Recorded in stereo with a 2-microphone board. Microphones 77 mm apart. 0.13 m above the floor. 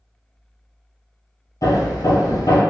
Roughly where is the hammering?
Left.